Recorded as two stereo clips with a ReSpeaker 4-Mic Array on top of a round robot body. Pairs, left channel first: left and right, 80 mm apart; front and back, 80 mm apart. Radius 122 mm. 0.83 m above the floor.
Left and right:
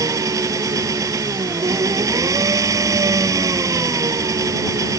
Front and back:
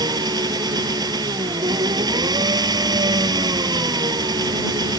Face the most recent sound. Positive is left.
turn(degrees=-140)